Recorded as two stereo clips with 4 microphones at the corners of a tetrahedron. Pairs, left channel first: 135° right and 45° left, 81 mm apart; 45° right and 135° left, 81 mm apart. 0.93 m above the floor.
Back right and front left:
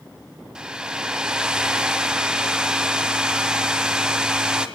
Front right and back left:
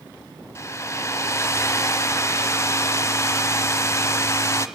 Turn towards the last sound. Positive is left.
turn(degrees=-25)